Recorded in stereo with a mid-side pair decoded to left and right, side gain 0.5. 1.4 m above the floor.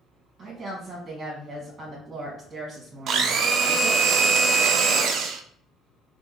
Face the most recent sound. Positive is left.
turn(degrees=-60)